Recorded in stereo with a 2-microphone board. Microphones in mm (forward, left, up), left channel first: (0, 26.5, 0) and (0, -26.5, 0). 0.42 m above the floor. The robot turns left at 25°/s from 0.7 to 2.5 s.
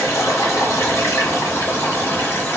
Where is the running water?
90° left, 1.5 m; by 2.6 s 45° left, 1.5 m.